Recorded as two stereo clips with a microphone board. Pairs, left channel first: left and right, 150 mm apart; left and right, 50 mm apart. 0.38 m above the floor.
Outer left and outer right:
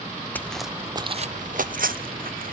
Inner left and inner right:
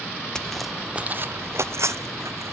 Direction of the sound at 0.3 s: 15° left (ahead or behind).